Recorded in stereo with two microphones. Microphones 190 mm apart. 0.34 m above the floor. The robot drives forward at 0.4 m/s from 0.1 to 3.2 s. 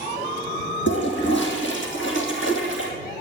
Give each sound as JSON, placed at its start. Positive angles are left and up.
{"t": 0.9, "sound": "a toilet flushing", "side_deg": 70, "distance_m": 3.5}